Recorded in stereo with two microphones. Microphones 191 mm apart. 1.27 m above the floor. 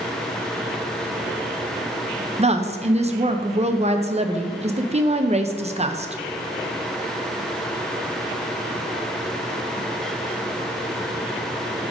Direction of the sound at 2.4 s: 30° right (ahead or behind).